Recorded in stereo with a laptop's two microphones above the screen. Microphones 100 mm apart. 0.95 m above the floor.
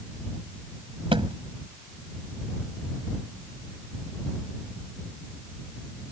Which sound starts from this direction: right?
A thud, at 1.1 s.